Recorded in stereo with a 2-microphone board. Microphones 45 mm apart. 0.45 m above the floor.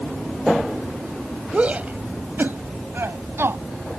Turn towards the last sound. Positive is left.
turn(degrees=-70)  # may be behind; listen again after turning